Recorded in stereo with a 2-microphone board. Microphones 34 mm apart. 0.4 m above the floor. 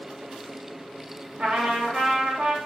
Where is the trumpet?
30° right (ahead or behind), 1.1 m.